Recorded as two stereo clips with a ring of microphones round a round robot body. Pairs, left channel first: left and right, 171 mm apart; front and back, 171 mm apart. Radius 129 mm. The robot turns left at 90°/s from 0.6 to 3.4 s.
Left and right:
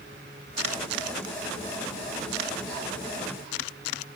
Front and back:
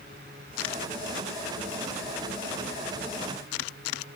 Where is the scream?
No scream in this recording.